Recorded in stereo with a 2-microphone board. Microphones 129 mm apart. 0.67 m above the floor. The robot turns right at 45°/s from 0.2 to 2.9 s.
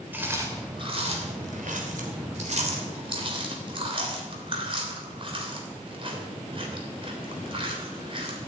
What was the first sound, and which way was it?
Chewing, 15° right (ahead or behind).